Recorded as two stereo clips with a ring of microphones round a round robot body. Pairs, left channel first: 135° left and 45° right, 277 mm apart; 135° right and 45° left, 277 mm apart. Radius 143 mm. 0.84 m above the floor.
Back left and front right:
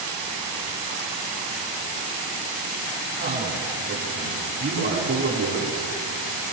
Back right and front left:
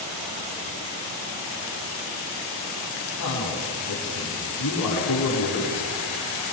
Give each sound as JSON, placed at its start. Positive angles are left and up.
{"t": 3.2, "sound": "a man speaking", "azimuth_deg": -105, "distance_m": 8.5}